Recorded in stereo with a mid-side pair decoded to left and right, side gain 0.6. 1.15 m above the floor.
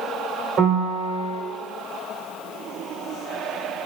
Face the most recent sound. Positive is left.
turn(degrees=-55)